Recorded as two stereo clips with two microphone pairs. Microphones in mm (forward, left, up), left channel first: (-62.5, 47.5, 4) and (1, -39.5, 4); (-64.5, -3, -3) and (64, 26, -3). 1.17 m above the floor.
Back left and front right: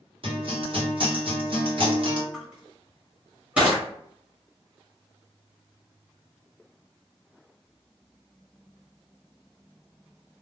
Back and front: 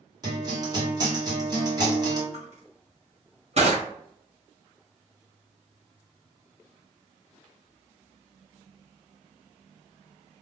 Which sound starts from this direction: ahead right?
A guitar, at 0.2 s.